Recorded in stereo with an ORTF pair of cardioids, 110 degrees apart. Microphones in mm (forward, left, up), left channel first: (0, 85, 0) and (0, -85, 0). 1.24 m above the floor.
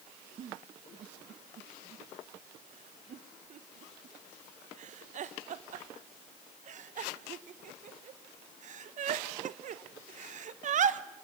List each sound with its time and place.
0.4 s a giggle: 45° right, 1.0 m